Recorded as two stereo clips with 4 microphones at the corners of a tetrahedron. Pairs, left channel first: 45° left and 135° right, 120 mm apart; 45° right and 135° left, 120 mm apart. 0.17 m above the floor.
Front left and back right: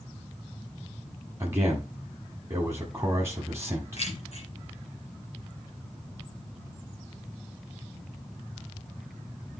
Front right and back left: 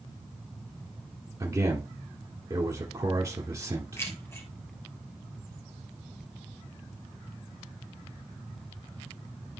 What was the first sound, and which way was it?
A man speaking, 170° left.